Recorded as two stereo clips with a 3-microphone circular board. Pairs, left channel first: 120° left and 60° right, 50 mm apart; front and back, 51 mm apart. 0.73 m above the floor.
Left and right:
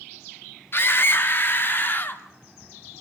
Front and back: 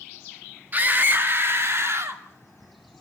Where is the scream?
135° left, 1.5 m; by 2.2 s 165° left, 2 m.